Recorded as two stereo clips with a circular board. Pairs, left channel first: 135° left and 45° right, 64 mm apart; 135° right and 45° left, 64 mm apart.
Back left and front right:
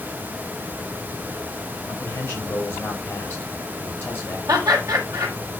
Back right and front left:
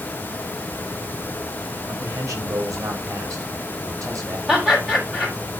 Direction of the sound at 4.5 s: 30° right.